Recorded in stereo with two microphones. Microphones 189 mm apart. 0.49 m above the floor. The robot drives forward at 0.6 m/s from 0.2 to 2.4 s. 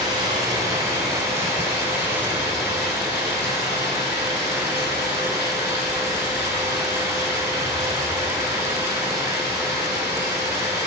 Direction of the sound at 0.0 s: 25° right (ahead or behind).